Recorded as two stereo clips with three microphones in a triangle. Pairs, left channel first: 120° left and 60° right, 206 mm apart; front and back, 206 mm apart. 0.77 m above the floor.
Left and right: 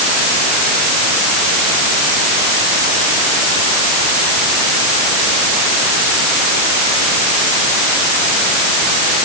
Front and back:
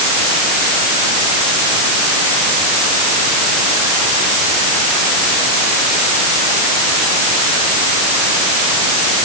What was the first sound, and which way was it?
Only background noise.